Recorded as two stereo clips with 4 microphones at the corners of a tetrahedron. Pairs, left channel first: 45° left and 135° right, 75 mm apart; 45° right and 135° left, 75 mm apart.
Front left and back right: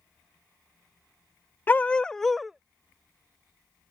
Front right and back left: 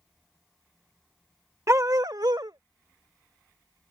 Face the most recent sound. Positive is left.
turn(degrees=160)